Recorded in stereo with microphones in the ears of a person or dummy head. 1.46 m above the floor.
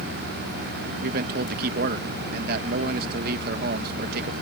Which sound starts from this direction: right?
A man speaking, at 1.0 s.